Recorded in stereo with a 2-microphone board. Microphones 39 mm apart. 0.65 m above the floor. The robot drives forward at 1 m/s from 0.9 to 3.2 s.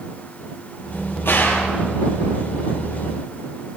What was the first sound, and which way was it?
A gunshot, 75° left (ahead or behind).